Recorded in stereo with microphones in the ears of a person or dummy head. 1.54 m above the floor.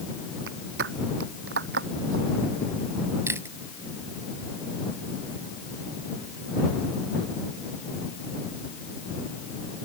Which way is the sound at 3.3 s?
10° right (ahead or behind).